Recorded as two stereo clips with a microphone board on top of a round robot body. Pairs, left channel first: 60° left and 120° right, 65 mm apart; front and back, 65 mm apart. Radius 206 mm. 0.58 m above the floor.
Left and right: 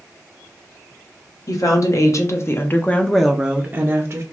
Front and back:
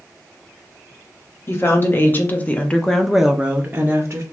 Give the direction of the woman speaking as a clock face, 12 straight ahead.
10 o'clock.